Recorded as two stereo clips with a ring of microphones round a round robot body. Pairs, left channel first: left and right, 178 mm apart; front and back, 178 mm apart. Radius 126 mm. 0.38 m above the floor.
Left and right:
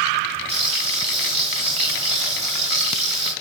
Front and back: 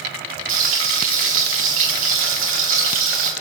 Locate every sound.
0.5 s frying: 160° right, 7.5 m